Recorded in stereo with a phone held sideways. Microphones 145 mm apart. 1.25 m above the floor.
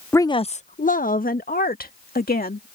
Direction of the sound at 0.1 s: 15° left (ahead or behind).